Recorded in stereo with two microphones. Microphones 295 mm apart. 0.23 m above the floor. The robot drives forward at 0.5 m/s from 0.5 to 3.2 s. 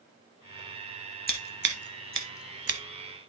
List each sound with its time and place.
1.3 s scissors: 30° right (ahead or behind), 1.1 m; by 2.8 s 55° right (ahead or behind), 0.7 m